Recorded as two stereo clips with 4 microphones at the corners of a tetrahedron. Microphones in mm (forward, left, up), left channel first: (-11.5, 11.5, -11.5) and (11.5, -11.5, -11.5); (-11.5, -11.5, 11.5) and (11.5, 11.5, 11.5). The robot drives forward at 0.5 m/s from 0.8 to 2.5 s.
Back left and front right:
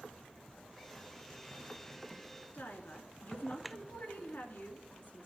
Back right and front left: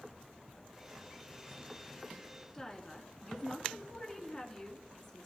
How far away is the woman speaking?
About 2.5 m.